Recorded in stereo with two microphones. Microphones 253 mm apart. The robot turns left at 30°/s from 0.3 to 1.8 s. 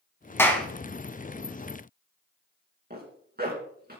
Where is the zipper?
40° right (ahead or behind), 3.5 m.